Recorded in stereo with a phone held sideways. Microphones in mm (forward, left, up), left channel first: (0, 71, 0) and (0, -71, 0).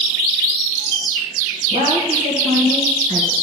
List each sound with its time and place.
1.7 s a woman speaking: 65° right (ahead or behind), 1.3 m